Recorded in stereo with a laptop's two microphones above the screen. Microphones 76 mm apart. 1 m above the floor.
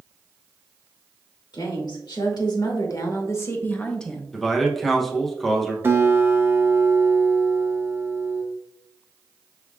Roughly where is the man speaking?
Centre.